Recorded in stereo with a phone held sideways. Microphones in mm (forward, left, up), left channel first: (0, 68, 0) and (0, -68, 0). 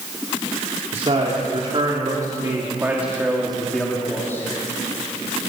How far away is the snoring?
I don't hear snoring.